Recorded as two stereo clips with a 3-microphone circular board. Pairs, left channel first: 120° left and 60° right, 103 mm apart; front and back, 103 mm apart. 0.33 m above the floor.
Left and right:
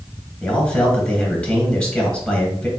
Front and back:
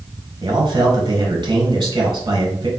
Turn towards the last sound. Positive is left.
turn(degrees=-160)